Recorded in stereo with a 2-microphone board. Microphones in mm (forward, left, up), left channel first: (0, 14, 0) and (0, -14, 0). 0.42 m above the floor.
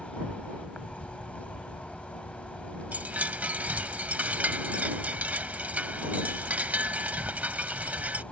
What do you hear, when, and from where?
0.0 s an insect: 55° left (ahead or behind)
2.9 s a chime: 80° right